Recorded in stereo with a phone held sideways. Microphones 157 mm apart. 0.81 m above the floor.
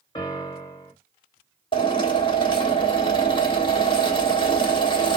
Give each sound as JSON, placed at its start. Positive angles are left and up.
{"t": 0.1, "sound": "a piano", "side_deg": 30, "distance_m": 1.2}
{"t": 1.7, "sound": "a drill", "side_deg": 30, "distance_m": 1.3}